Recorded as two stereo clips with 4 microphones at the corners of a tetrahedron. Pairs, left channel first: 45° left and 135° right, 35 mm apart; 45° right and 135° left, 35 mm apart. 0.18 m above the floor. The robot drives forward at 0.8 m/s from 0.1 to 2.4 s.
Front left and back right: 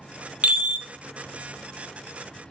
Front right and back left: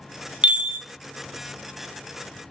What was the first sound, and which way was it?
A chime, 175° right.